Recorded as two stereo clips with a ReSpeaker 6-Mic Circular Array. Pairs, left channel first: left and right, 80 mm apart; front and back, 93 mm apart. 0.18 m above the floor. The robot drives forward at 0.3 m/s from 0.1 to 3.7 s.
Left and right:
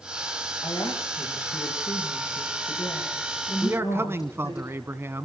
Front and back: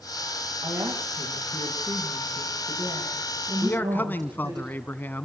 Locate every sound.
0.6 s a woman speaking: 130° left, 9 m; by 4.6 s 135° left, 9.5 m
3.6 s a man speaking: 50° right, 1.2 m; by 5.3 s 55° right, 1.2 m